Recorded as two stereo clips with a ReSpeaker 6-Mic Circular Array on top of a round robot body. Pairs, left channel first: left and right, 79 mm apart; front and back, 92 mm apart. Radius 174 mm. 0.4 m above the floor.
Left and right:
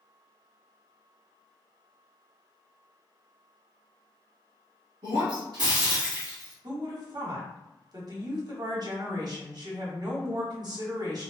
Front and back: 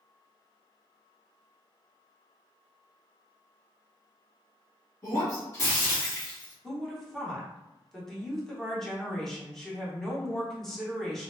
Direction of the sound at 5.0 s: 60° right.